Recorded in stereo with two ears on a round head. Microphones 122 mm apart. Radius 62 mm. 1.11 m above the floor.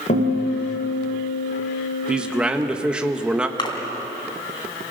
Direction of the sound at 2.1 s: 5° right (ahead or behind).